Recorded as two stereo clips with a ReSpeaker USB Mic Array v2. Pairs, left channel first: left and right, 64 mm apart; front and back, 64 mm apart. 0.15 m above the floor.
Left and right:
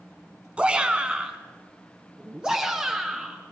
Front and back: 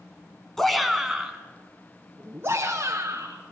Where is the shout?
70° right, 1.7 m; by 3.4 s 165° right, 2.5 m.